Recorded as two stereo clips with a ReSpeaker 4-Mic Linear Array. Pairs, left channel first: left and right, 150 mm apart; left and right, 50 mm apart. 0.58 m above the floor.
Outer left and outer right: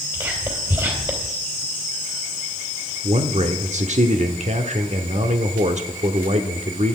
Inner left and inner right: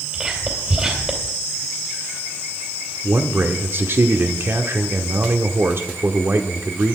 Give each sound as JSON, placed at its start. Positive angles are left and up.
{"t": 0.1, "sound": "whispering", "side_deg": -30, "distance_m": 2.5}
{"t": 3.0, "sound": "a man speaking", "side_deg": -50, "distance_m": 1.2}